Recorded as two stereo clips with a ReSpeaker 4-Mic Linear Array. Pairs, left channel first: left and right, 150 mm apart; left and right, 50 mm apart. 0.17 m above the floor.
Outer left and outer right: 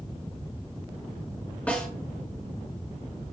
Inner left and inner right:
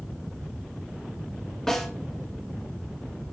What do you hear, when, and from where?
1.7 s a snare drum: 10° left (ahead or behind), 1.9 m